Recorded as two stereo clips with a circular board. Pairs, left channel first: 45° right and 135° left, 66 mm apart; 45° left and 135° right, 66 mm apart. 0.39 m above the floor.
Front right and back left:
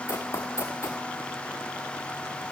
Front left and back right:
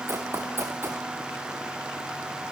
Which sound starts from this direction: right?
Running footsteps, at 0.1 s.